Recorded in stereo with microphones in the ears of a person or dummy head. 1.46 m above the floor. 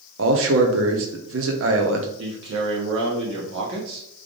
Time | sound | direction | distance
0.2 | a man speaking | 60° right (ahead or behind) | 0.8 m
2.2 | a man speaking | 70° right (ahead or behind) | 1.2 m